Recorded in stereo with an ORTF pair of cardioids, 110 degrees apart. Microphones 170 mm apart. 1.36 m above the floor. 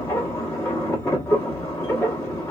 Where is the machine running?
15° left, 1.1 m.